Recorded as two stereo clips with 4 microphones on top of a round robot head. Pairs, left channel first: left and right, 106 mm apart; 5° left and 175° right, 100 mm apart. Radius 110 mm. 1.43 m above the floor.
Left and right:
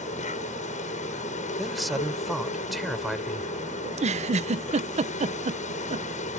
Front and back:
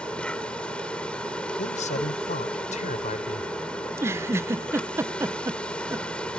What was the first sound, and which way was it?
An insect, 85° left.